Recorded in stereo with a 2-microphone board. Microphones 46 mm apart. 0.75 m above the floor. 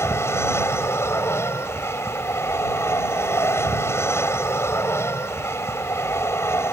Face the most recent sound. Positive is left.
turn(degrees=70)  # may be behind; listen again after turning